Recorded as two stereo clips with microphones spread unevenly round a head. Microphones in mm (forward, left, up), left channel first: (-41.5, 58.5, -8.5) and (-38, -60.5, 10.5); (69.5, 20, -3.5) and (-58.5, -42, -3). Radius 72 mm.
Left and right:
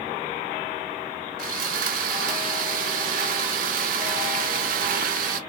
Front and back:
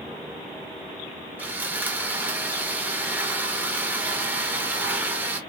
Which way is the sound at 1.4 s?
75° right.